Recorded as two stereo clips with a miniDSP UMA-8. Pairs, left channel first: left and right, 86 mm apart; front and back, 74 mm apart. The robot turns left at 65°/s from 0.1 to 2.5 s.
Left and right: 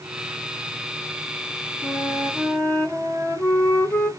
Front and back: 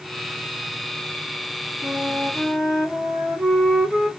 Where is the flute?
105° left, 1.6 m; by 4.1 s 60° left, 1.6 m.